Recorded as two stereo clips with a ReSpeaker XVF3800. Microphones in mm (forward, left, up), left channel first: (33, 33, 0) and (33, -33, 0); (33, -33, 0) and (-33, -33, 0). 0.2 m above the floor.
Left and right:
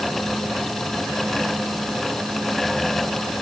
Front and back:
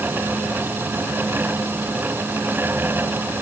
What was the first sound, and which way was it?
Only background noise.